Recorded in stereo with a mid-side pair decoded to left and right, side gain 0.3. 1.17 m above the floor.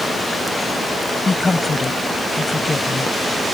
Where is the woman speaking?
40° left.